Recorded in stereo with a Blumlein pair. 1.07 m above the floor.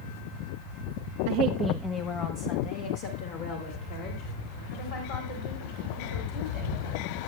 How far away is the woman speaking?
About 0.5 m.